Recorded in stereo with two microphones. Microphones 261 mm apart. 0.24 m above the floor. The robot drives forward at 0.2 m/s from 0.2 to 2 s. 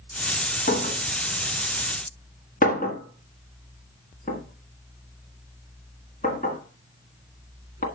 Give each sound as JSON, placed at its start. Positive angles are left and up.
{"t": 0.7, "sound": "a clink", "side_deg": 40, "distance_m": 1.5}